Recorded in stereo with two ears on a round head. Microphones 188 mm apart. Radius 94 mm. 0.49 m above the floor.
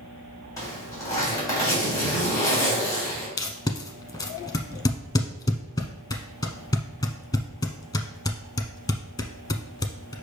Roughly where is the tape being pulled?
Centre.